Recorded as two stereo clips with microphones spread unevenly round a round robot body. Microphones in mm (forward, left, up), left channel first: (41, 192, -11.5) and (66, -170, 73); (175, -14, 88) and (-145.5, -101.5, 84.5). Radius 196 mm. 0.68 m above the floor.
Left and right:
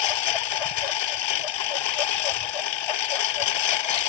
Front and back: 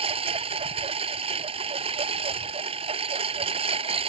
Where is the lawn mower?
120° left.